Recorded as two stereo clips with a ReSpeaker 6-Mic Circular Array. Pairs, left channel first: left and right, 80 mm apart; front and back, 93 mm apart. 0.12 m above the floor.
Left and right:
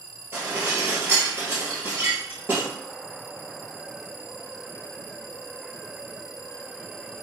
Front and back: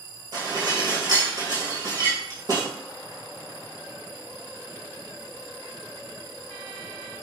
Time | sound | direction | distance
0.3 | dishes clattering | 150° right | 1.5 m